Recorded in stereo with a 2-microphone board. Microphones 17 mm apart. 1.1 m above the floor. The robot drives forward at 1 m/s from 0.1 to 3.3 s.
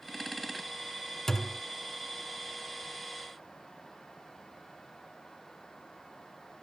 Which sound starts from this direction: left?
A thud, at 1.3 s.